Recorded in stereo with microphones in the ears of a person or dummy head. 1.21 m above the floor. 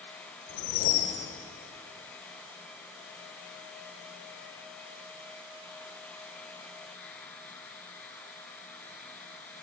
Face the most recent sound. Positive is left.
turn(degrees=70)  # may be behind; listen again after turning